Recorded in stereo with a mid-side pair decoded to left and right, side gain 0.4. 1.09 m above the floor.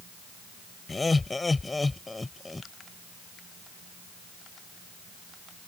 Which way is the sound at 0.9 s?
25° left.